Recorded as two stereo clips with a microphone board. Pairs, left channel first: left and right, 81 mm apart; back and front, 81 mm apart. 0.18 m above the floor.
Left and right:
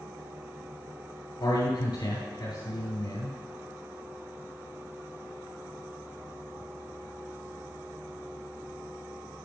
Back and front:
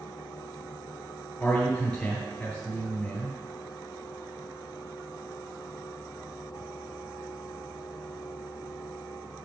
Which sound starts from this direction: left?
A man speaking, at 1.4 s.